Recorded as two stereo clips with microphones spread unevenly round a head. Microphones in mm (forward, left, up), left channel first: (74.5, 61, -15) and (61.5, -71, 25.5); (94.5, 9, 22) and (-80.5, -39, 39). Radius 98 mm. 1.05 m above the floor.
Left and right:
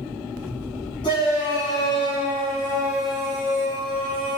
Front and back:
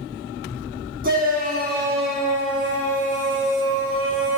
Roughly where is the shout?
Behind left.